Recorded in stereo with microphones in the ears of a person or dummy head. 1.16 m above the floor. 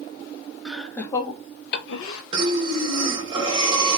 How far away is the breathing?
About 0.9 m.